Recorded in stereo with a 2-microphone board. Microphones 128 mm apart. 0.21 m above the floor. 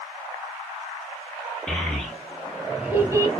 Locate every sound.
1.7 s a child speaking: 10° left (ahead or behind), 1.2 m; by 3.3 s 25° right (ahead or behind), 0.6 m